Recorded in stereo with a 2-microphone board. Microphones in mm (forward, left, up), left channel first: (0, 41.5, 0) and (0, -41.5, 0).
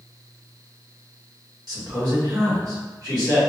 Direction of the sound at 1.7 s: 55° right (ahead or behind).